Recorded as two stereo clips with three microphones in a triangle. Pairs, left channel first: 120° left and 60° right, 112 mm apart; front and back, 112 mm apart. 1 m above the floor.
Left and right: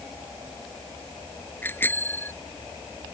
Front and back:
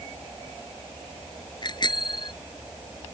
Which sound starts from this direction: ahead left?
A bicycle bell, at 1.6 s.